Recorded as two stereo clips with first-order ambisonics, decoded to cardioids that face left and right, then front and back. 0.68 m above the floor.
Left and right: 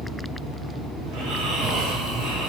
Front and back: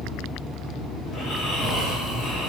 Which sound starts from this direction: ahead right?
Snoring, at 1.1 s.